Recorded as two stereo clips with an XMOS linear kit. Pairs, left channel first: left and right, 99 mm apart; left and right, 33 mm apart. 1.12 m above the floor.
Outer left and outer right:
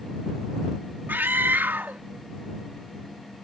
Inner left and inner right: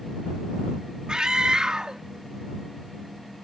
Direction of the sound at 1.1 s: 20° right (ahead or behind).